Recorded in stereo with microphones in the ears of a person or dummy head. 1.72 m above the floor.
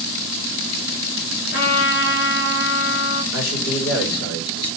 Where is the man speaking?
85° left, 6 m.